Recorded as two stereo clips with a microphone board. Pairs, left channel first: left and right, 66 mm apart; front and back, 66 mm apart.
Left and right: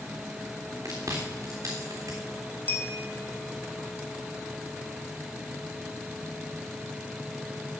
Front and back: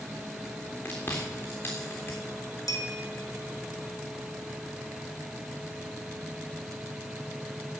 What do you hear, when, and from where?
0.8 s chewing: 55° right, 3.5 m
2.7 s a bell: 25° left, 1.6 m